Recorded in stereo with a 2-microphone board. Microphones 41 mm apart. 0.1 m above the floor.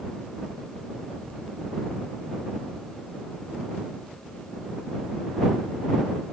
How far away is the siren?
No siren in this recording.